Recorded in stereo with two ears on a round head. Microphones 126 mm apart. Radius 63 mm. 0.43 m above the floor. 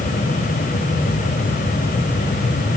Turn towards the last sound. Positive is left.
No sound to turn to.